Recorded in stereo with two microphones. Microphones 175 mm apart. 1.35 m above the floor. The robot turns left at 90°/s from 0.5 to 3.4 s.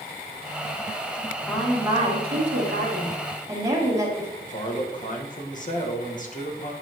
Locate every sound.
1.5 s a woman speaking: 15° left, 2.5 m; by 4.3 s 160° right, 2.5 m
4.4 s a man speaking: 50° left (ahead or behind), 1.5 m